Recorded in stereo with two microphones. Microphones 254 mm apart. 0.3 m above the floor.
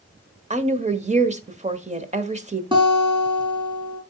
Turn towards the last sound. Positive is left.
turn(degrees=-20)  # may be behind; listen again after turning